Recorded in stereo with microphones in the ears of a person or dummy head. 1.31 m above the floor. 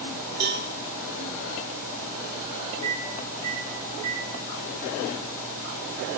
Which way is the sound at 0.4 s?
55° right (ahead or behind).